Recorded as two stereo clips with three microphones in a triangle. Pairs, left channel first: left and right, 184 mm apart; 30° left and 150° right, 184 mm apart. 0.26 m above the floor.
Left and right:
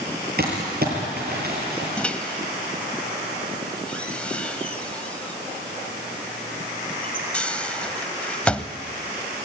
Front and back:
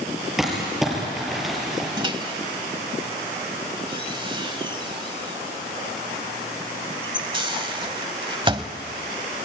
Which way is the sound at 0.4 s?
60° right.